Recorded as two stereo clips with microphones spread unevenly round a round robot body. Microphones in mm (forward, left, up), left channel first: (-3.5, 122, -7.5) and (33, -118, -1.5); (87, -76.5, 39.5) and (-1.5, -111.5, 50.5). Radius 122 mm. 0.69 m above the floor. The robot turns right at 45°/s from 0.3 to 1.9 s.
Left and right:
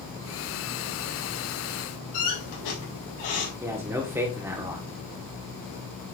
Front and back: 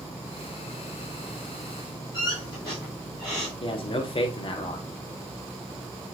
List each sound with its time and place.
2.1 s a squeak: 95° left, 4 m
3.6 s a man speaking: straight ahead, 1.3 m